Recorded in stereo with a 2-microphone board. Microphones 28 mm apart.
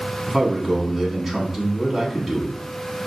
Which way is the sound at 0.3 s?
10° right (ahead or behind).